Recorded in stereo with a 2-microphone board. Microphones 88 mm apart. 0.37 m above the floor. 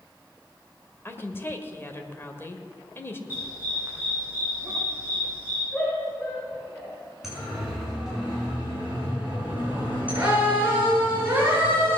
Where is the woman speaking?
25° left (ahead or behind), 1.6 m.